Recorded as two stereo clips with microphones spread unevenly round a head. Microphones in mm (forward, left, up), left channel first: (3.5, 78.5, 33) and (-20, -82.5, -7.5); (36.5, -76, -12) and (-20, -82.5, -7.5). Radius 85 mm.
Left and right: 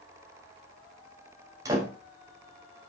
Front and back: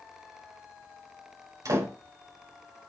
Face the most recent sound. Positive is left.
turn(degrees=-170)